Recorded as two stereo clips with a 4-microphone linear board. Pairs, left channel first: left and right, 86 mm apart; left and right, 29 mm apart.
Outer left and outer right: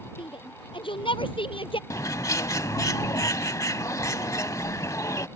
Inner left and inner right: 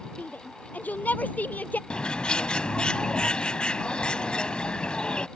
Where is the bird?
40° left (ahead or behind).